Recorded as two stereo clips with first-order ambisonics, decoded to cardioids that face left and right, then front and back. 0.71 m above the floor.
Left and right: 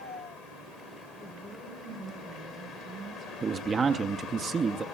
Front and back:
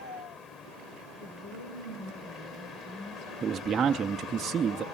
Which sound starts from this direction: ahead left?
A woman speaking, at 1.2 s.